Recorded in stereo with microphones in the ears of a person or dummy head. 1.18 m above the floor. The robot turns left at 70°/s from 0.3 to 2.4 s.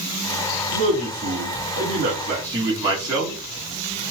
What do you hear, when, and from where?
0.7 s a man speaking: 35° right, 1.8 m; by 3.4 s 155° right, 1.8 m